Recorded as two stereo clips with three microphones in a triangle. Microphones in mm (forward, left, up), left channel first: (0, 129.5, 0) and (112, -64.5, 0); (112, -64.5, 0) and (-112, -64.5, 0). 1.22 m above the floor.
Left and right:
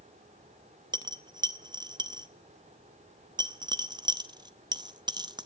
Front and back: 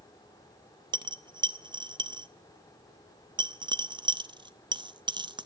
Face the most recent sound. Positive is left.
turn(degrees=-120)